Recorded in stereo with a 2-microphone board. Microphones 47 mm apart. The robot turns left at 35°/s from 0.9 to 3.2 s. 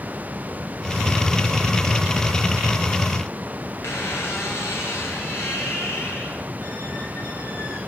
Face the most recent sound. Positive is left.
turn(degrees=65)  # may be behind; listen again after turning